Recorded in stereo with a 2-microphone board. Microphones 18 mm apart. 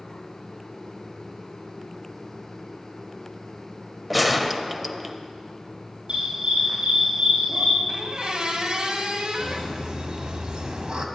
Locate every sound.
4.1 s a gunshot: centre (ahead or behind), 0.7 m
6.1 s a dog barking: 65° right (ahead or behind), 6 m
7.9 s a squeak: 55° right (ahead or behind), 1.7 m
9.4 s laughter: 55° right (ahead or behind), 2.0 m